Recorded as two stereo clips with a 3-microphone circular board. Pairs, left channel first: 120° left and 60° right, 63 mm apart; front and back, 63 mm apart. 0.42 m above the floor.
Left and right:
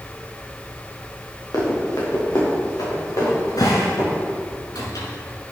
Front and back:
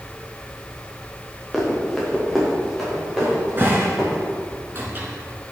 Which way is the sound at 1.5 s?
90° left.